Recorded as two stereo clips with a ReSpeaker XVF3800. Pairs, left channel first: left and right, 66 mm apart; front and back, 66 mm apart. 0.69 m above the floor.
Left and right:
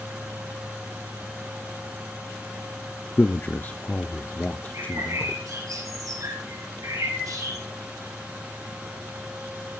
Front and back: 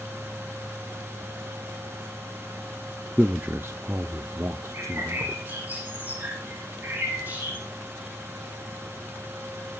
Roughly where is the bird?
Behind right.